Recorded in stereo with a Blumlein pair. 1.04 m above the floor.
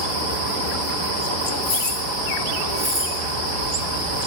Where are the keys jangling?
50° left, 1.4 m; by 3.1 s 15° right, 2.5 m.